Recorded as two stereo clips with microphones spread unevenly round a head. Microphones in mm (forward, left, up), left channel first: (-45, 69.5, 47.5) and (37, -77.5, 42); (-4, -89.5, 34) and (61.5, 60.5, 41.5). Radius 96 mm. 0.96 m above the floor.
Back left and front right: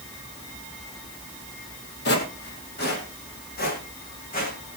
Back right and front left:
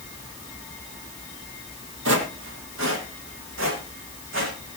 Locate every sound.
2.0 s footsteps: 90° left, 2.5 m; by 4.6 s 80° left, 4.5 m